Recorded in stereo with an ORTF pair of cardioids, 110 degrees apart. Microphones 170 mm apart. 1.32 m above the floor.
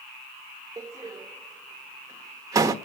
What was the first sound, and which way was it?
A door slam, 20° right.